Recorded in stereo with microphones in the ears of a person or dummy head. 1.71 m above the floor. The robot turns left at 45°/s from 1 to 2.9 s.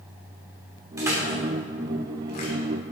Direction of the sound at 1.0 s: 15° right (ahead or behind).